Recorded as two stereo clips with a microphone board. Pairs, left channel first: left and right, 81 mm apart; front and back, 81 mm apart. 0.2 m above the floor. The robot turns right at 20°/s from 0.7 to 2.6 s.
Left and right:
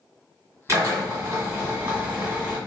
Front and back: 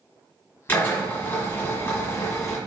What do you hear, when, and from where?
0.7 s a drill: 50° right, 2 m; by 2.6 s 15° right, 2 m